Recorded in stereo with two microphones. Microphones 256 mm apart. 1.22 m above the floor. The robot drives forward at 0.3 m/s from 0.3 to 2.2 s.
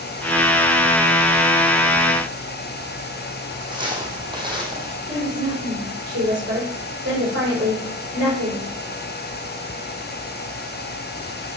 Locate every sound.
3.7 s footsteps: 20° right (ahead or behind), 3 m; by 5.0 s 15° right (ahead or behind), 2 m
5.1 s a woman speaking: 65° right (ahead or behind), 4.5 m